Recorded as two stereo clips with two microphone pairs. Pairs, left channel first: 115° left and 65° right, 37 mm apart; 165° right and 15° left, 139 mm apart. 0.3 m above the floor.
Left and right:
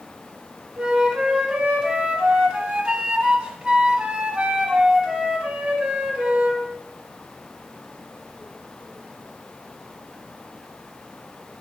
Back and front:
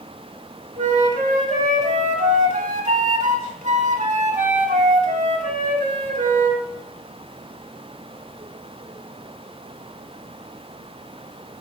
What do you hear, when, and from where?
0.8 s a flute: 10° right, 1.0 m